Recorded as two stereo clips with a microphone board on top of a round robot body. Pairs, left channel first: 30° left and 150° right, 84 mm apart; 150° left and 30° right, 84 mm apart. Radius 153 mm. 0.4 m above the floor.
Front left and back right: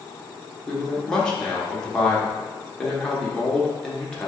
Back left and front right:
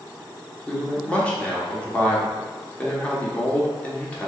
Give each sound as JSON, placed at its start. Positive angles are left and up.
{"t": 0.7, "sound": "a man speaking", "azimuth_deg": 100, "distance_m": 1.3}